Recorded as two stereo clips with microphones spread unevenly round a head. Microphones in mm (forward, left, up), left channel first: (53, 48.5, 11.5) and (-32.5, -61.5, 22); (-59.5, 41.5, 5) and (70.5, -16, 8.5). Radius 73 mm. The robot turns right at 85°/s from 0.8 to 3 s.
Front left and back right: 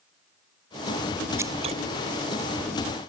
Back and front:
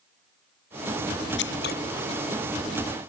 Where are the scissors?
160° left; by 1.8 s 170° right.